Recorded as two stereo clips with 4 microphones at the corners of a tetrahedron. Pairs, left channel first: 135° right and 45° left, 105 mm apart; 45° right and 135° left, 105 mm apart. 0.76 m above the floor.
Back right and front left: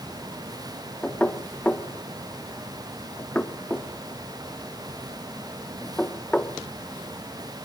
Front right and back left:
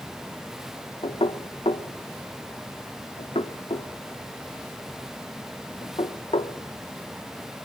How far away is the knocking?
About 0.9 m.